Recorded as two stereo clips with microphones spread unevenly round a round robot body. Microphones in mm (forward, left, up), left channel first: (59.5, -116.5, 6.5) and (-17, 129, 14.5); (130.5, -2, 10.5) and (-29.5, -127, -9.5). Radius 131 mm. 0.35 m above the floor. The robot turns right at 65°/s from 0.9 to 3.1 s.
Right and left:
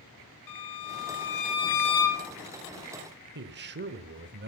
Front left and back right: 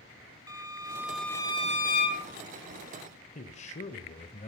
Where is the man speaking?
90° left, 1.0 m.